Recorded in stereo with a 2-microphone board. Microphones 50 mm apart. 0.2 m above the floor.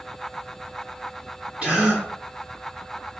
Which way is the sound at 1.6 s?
25° right (ahead or behind).